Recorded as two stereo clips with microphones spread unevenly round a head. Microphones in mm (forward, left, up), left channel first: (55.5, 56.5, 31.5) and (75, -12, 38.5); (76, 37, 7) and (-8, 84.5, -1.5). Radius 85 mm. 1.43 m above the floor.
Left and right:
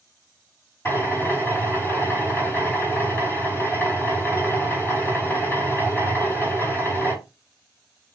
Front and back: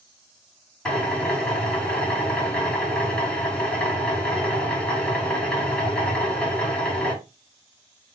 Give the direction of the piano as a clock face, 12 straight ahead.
I don't hear a piano.